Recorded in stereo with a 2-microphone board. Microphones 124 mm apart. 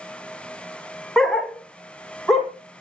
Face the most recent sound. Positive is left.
turn(degrees=0)  # may be behind; listen again after turning